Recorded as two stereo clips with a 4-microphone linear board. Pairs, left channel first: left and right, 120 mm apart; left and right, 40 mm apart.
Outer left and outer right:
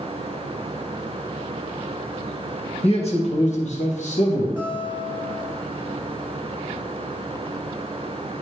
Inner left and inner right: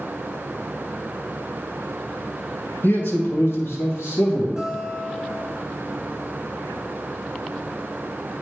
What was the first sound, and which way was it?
A man speaking, 60° left (ahead or behind).